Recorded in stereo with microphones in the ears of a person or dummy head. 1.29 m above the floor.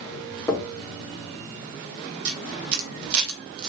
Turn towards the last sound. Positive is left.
turn(degrees=-70)  # may be behind; listen again after turning